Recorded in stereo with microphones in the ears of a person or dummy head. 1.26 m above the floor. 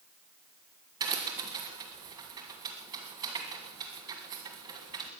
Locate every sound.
1.0 s a crack: 20° right (ahead or behind), 1.6 m